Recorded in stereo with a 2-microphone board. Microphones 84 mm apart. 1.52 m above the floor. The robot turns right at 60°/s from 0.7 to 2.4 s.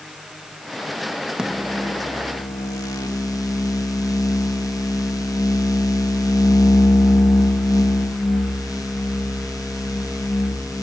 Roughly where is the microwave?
Ahead.